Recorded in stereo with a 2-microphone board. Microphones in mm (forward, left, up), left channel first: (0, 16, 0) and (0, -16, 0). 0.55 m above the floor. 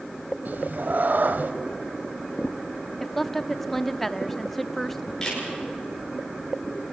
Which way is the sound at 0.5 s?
55° right (ahead or behind).